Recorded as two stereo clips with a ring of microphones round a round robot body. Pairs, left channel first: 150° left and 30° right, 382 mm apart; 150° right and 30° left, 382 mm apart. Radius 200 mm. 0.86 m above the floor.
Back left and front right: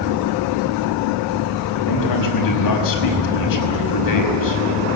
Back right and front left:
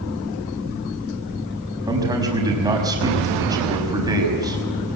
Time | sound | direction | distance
1.9 | a man speaking | 110° left | 5.5 m